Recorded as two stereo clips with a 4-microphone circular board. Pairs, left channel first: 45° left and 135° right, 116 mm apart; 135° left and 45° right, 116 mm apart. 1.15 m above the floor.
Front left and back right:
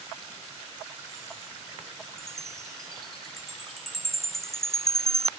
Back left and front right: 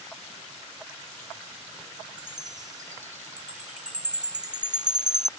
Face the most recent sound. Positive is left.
turn(degrees=-40)